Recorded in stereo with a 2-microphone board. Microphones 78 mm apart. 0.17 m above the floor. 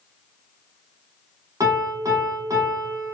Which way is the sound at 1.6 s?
50° right (ahead or behind).